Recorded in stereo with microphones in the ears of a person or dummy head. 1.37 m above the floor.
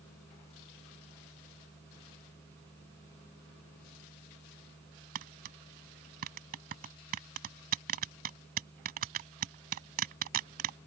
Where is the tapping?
45° right (ahead or behind).